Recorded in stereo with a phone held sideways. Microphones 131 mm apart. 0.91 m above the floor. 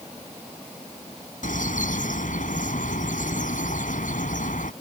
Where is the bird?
80° left.